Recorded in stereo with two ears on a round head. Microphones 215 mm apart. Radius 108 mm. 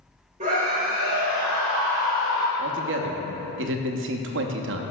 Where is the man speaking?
55° right (ahead or behind), 0.7 m.